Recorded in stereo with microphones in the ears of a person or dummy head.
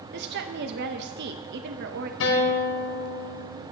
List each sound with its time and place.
0.1 s a woman speaking: 55° right (ahead or behind), 0.7 m
2.2 s a guitar: 70° left (ahead or behind), 1.8 m